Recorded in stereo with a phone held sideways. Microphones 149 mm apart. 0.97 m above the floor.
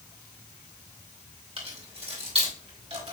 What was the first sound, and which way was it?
Keys jangling, 40° right (ahead or behind).